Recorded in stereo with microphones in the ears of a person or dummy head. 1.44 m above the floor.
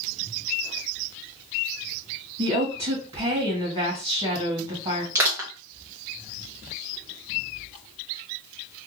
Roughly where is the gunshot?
I don't hear a gunshot.